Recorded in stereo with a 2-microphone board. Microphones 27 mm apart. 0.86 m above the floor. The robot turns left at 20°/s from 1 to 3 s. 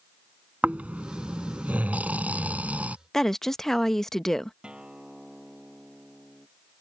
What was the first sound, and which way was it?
Snoring, 75° right.